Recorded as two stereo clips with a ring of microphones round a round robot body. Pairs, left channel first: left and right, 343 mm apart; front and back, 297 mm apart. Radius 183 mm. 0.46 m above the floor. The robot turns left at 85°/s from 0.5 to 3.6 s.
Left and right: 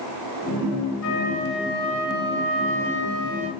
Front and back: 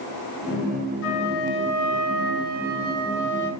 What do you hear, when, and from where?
1.0 s a flute: 45° left, 3.5 m; by 3.5 s 170° right, 3.5 m